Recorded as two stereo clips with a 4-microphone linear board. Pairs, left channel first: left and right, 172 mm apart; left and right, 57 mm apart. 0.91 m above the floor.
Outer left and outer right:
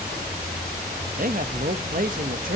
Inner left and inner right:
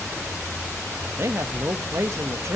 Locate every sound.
1.2 s a man speaking: 55° right (ahead or behind), 1.0 m